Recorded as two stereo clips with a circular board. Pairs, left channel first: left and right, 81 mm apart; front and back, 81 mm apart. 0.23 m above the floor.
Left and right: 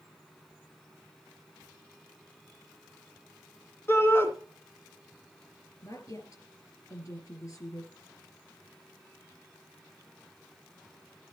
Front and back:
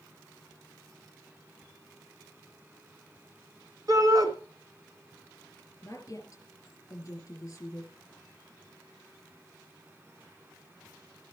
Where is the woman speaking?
50° left, 4 m.